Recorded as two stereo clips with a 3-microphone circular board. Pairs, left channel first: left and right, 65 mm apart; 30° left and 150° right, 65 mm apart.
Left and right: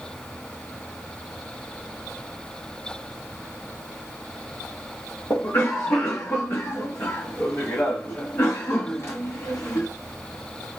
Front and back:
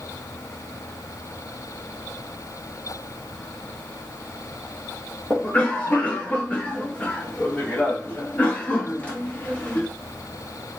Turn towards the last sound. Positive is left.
turn(degrees=75)